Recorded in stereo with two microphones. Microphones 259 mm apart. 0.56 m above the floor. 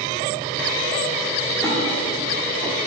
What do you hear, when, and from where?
1.6 s a splash: 5° left (ahead or behind), 1.7 m